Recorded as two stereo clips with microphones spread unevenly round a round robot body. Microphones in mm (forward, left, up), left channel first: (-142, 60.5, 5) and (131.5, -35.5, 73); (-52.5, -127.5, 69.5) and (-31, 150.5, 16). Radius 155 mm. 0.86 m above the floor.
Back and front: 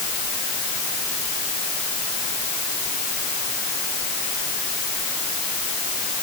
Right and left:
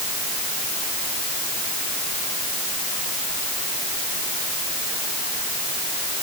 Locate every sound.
Only background noise.